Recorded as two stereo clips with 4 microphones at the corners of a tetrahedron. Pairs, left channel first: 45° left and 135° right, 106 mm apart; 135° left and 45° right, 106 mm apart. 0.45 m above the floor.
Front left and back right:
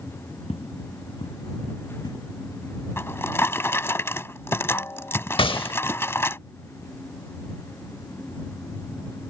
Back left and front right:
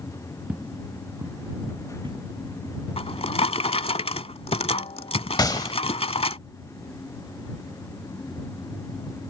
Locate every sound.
0.5 s footsteps: 30° left; by 2.2 s 5° right
3.0 s a drawer: 110° left
5.4 s a gunshot: 80° left